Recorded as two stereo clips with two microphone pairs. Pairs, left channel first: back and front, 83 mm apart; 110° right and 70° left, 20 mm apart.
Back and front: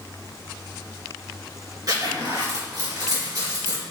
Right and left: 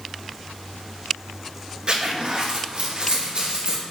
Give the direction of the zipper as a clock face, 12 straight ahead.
11 o'clock.